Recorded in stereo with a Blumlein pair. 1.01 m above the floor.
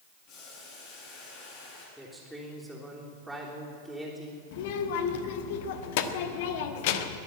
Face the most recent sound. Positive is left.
turn(degrees=50)